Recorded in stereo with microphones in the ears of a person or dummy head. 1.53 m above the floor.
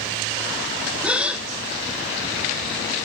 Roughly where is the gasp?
Centre.